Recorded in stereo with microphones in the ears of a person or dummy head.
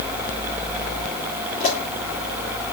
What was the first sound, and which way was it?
A pop, 45° left (ahead or behind).